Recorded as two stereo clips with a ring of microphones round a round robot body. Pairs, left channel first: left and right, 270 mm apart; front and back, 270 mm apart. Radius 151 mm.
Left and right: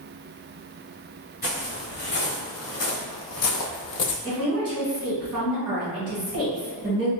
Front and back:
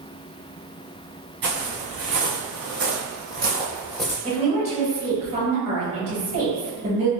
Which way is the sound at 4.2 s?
160° right.